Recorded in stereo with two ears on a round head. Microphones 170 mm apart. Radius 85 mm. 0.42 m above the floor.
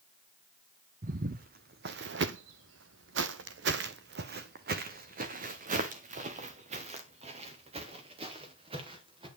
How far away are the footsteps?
About 1.3 m.